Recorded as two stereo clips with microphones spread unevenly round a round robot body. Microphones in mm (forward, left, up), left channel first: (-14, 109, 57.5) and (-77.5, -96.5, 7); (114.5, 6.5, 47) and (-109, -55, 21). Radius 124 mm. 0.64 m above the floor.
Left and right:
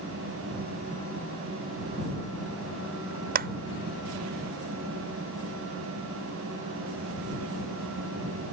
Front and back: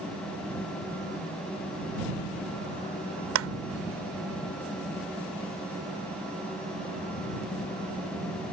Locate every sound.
3.4 s a clap: 150° right